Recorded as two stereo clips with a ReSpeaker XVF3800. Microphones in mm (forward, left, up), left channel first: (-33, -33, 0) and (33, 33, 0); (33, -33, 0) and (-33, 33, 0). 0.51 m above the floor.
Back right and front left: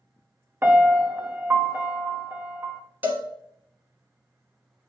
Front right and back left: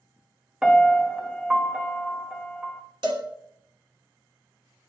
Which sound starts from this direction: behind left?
A cowbell, at 3.0 s.